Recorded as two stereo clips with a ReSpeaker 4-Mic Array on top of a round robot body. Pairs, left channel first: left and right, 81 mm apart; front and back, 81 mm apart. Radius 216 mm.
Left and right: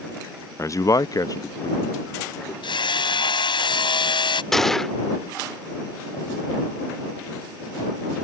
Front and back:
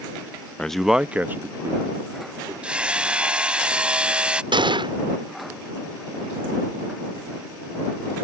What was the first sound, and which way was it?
A man speaking, 70° left.